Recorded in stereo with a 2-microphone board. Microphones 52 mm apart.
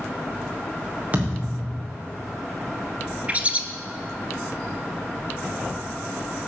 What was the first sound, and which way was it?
A thud, 30° right (ahead or behind).